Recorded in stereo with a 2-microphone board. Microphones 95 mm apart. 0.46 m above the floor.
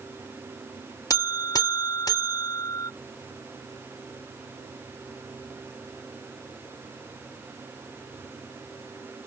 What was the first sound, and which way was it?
A buzzer, 40° left (ahead or behind).